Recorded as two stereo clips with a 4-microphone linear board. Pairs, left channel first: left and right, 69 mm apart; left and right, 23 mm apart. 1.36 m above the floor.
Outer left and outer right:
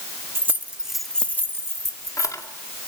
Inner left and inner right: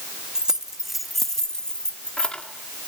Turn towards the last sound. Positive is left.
turn(degrees=60)  # may be behind; listen again after turning